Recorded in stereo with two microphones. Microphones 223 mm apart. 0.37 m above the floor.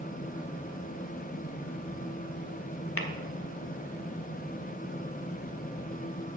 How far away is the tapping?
About 0.9 m.